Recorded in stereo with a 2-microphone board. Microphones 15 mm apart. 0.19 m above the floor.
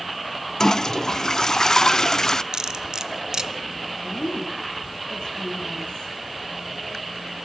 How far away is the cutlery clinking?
About 1.1 m.